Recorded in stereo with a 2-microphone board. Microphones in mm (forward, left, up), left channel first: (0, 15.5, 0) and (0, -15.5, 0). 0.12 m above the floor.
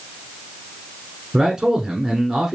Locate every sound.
1.3 s a man speaking: 15° right (ahead or behind), 1.1 m